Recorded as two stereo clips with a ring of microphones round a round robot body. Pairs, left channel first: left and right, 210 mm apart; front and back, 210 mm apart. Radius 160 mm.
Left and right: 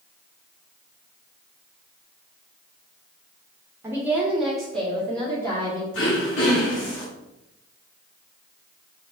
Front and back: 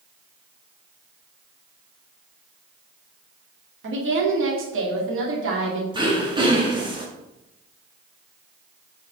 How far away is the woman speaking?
About 1.7 m.